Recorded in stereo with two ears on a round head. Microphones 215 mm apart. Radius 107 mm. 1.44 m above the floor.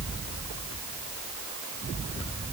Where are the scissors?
I don't hear scissors.